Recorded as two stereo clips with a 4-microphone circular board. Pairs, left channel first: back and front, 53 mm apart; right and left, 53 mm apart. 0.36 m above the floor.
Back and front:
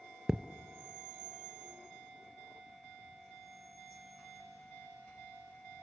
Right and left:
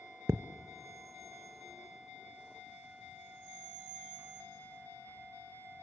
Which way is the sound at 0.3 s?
80° left.